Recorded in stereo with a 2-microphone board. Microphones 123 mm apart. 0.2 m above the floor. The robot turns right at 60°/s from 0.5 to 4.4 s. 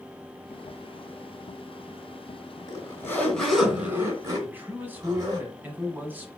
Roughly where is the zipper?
Behind left.